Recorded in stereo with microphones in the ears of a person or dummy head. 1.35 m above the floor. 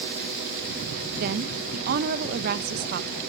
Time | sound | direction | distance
1.2 | a woman speaking | 55° right (ahead or behind) | 1.2 m